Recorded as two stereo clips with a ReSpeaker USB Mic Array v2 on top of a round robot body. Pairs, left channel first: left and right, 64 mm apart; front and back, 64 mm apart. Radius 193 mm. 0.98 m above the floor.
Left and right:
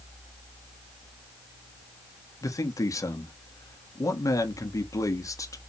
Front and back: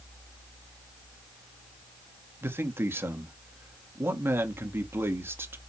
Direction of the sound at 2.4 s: 125° left.